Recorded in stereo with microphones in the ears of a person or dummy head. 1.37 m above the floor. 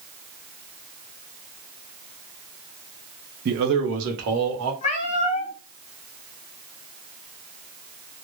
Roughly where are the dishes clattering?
No dishes clattering in this recording.